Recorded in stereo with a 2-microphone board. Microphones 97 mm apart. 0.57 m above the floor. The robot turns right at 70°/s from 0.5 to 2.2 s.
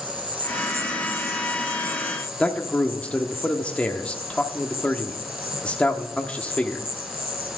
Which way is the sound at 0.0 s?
20° right.